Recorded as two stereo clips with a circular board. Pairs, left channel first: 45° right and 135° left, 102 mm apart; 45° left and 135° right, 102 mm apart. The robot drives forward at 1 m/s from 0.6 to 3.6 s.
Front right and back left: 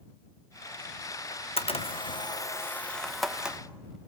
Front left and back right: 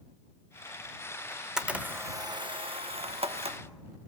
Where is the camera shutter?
40° right, 1.3 m; by 3.6 s 145° right, 1.6 m.